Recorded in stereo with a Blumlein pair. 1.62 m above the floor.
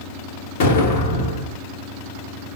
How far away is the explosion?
About 0.8 m.